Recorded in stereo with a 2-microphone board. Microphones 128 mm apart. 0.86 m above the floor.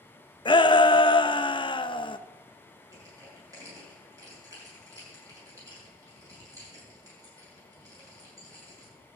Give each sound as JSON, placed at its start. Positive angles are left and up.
{"t": 0.5, "sound": "a shout", "side_deg": 35, "distance_m": 0.6}
{"t": 2.9, "sound": "crushing", "side_deg": -25, "distance_m": 6.5}